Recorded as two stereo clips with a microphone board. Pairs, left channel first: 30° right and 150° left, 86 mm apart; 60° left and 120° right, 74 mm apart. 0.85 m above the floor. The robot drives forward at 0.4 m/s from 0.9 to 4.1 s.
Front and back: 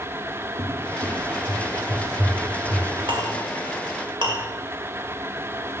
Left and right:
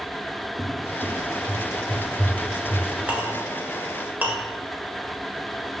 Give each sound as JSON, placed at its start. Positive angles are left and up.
{"t": 0.6, "sound": "a cupboard door", "azimuth_deg": 165, "distance_m": 1.6}
{"t": 3.1, "sound": "a clink", "azimuth_deg": 170, "distance_m": 1.5}